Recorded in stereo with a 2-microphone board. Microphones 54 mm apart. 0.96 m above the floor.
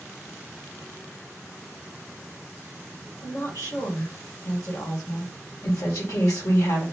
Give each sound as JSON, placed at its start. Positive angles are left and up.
{"t": 3.2, "sound": "a woman speaking", "side_deg": 65, "distance_m": 1.5}
{"t": 5.6, "sound": "a woman speaking", "side_deg": 80, "distance_m": 1.5}